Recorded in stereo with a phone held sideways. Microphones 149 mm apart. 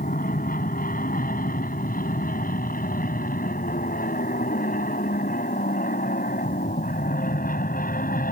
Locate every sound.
0.0 s an aircraft: 70° left (ahead or behind); by 8.3 s 75° left (ahead or behind)